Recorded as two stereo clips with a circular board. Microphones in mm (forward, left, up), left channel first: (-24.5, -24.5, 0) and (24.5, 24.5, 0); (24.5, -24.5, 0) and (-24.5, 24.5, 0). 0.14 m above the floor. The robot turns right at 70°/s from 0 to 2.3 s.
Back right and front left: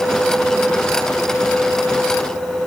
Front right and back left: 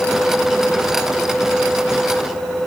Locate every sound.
Only background noise.